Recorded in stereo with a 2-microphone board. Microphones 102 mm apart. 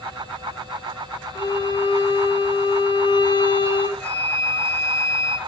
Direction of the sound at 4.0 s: 20° left (ahead or behind).